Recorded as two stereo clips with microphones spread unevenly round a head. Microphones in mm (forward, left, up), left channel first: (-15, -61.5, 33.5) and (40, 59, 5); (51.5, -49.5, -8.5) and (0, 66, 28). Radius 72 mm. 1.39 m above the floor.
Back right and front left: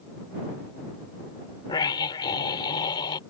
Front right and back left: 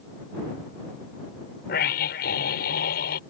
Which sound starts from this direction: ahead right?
A scream, at 1.7 s.